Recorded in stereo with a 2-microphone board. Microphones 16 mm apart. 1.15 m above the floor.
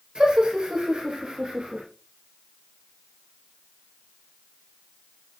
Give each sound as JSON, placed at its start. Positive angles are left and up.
{"t": 0.1, "sound": "laughter", "side_deg": -55, "distance_m": 4.0}